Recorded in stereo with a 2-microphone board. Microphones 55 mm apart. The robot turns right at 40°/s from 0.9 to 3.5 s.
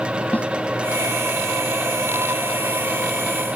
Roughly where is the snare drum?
Left.